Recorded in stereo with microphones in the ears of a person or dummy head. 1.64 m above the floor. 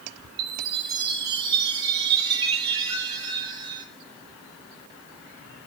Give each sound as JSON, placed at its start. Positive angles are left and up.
{"t": 0.4, "sound": "a chime", "side_deg": -30, "distance_m": 9.5}